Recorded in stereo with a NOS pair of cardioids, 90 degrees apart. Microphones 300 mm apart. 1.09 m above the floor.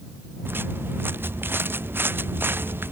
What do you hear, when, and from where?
0.5 s footsteps: 5° right